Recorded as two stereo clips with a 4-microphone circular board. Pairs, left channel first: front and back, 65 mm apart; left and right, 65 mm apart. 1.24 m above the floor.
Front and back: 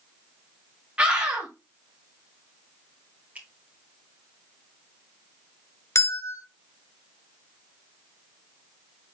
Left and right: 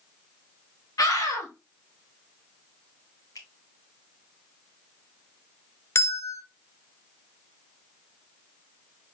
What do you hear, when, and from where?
1.0 s a scream: 110° left, 2.5 m
3.4 s a finger snap: 115° left, 1.5 m
6.0 s a bell: 45° left, 0.6 m